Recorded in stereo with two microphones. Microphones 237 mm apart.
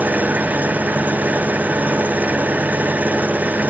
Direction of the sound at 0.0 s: 5° right (ahead or behind).